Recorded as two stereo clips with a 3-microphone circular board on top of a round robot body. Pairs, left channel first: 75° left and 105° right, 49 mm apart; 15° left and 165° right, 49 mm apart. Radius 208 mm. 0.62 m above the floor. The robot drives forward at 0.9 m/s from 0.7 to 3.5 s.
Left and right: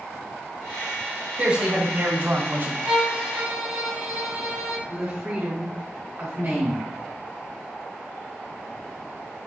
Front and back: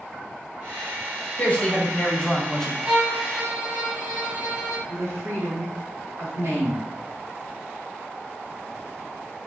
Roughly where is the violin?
Behind right.